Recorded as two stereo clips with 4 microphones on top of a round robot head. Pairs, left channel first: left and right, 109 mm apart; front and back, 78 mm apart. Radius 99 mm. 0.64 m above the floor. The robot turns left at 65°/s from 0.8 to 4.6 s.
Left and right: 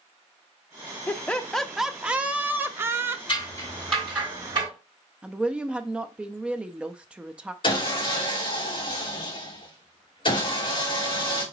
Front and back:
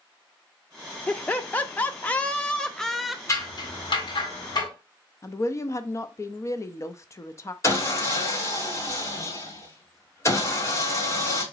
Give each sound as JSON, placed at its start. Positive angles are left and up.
{"t": 1.1, "sound": "laughter", "azimuth_deg": 40, "distance_m": 0.6}
{"t": 3.3, "sound": "scissors", "azimuth_deg": 45, "distance_m": 3.0}
{"t": 5.2, "sound": "a woman speaking", "azimuth_deg": -15, "distance_m": 0.6}
{"t": 7.6, "sound": "sawing", "azimuth_deg": 45, "distance_m": 3.5}